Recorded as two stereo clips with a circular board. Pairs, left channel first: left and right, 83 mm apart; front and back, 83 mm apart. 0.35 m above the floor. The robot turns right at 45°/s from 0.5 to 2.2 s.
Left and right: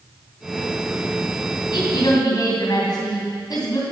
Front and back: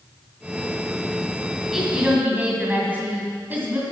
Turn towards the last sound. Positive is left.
turn(degrees=115)